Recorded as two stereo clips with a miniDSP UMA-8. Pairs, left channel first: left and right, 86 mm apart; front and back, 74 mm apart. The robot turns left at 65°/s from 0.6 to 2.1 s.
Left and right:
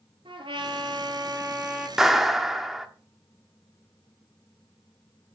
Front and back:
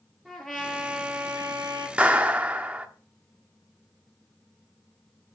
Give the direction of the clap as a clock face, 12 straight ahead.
5 o'clock.